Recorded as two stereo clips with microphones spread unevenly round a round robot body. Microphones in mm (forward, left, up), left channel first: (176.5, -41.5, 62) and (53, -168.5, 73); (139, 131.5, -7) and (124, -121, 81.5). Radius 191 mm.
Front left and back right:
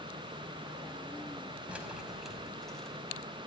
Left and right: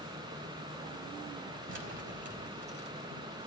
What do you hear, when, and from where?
1.7 s keys jangling: 50° right, 4.5 m; by 3.5 s 35° right, 5 m